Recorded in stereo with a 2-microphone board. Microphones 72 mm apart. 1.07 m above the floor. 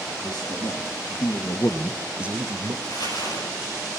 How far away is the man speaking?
About 3 m.